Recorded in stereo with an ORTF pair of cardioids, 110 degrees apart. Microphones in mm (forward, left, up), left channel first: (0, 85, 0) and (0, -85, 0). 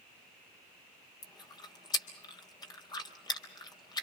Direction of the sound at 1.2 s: 25° left.